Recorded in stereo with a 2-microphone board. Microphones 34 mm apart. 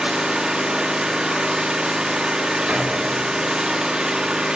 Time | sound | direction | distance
0.0 | an engine running | 25° right (ahead or behind) | 1.2 m
2.7 | a door slam | 35° right (ahead or behind) | 1.9 m